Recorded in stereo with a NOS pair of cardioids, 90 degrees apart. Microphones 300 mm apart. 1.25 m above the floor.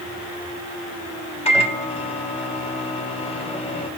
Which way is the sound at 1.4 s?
20° left.